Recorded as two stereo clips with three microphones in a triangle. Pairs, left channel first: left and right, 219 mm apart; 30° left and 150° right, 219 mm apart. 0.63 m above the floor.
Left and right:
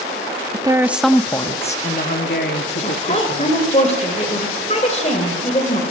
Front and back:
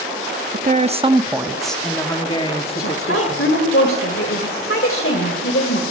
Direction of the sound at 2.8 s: 35° left.